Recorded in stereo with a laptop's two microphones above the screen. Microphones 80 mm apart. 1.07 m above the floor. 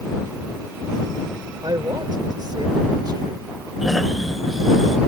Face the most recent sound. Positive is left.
turn(degrees=0)  # may be behind; listen again after turning